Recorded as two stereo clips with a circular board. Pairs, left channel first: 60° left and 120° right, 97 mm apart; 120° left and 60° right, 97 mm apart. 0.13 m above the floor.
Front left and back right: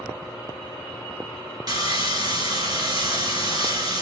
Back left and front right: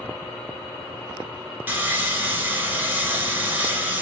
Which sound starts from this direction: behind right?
Sawing, at 1.7 s.